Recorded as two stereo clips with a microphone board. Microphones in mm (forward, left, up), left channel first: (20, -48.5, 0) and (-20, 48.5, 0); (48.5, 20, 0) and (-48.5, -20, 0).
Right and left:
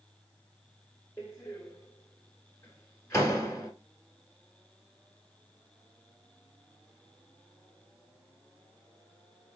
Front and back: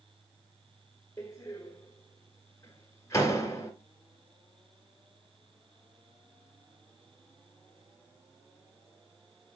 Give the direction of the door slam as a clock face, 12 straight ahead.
1 o'clock.